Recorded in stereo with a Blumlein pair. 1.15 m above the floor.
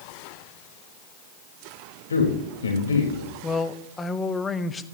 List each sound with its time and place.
2.1 s a man speaking: 70° left, 4 m
3.4 s a man speaking: 15° left, 0.9 m